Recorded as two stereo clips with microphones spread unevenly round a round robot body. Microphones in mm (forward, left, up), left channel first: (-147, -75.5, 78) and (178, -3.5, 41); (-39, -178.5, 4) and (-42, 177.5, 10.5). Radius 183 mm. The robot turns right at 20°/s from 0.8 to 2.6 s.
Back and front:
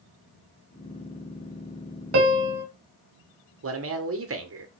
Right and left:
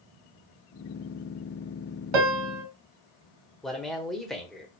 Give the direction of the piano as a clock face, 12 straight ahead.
10 o'clock.